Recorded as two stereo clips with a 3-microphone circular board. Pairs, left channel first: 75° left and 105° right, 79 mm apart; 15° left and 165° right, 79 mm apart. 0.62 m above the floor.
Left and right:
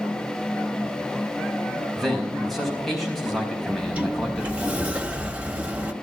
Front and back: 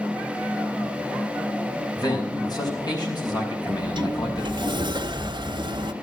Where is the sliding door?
Straight behind, 1.1 m.